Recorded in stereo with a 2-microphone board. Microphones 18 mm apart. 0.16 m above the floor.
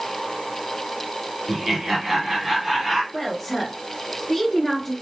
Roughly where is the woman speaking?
Left.